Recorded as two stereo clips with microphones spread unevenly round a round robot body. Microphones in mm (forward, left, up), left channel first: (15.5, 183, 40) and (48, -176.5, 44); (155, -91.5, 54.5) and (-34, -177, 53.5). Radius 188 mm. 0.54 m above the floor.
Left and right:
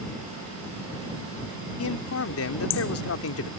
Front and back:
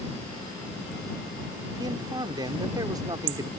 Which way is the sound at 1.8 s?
135° left.